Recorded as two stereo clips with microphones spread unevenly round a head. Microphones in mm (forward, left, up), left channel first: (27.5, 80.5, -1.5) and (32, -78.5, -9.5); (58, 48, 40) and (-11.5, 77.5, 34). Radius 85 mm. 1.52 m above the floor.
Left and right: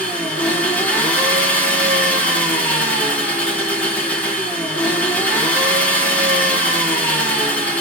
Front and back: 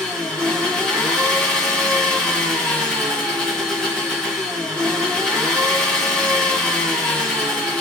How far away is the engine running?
About 0.8 m.